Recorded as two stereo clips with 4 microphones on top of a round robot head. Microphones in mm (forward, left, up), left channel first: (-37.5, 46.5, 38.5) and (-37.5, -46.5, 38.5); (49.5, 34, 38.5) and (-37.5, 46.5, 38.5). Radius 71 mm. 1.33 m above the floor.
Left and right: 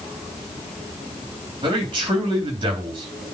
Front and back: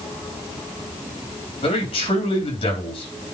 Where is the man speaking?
40° right, 3.5 m.